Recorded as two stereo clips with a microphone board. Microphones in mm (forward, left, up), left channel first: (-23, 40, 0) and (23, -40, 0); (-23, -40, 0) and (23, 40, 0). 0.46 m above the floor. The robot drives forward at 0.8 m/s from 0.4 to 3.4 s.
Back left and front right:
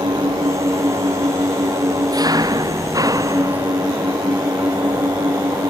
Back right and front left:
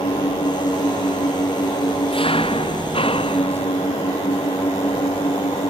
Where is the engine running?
100° right; by 5.7 s 110° right.